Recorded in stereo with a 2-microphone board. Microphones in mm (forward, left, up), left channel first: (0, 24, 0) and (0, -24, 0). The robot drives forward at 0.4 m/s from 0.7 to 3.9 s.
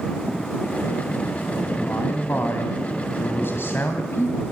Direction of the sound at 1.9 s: 45° left (ahead or behind).